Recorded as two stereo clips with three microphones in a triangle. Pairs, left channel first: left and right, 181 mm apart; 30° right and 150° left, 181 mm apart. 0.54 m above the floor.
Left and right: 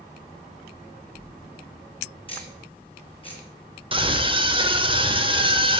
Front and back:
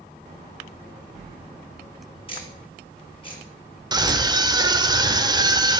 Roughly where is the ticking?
Ahead left.